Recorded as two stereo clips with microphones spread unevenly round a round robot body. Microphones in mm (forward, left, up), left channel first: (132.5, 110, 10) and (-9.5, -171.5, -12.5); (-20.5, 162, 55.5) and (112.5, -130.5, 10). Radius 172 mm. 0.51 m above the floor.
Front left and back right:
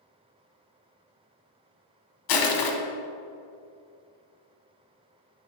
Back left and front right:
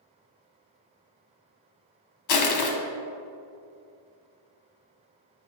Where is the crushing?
85° left, 1.2 m.